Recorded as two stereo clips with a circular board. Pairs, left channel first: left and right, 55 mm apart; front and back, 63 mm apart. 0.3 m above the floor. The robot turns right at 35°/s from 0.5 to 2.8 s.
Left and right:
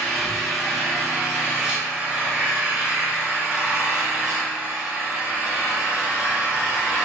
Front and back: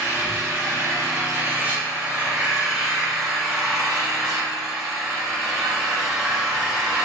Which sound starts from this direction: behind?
An engine running, at 0.0 s.